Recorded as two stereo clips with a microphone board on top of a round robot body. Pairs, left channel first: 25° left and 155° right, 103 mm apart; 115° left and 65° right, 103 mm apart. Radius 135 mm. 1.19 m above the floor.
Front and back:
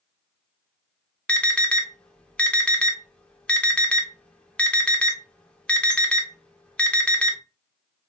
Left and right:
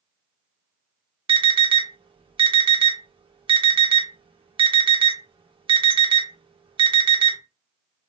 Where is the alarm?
55° right, 0.8 m.